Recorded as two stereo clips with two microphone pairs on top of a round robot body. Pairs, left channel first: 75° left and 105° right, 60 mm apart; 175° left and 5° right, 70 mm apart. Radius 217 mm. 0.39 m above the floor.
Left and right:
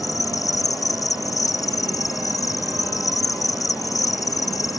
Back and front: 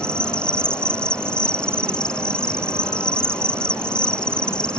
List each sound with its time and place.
0.0 s an insect: 100° left